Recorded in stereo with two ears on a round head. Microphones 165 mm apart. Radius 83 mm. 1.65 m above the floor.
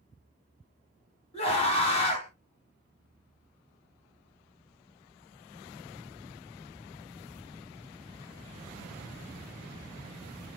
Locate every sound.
1.3 s a scream: 35° left (ahead or behind), 1.9 m